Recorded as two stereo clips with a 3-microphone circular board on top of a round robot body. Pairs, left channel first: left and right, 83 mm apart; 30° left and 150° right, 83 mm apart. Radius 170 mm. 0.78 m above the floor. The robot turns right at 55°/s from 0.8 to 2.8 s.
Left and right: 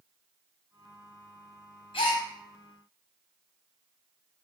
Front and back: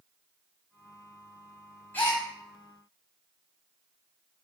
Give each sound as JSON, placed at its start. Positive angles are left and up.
{"t": 1.9, "sound": "a gasp", "azimuth_deg": 100, "distance_m": 0.9}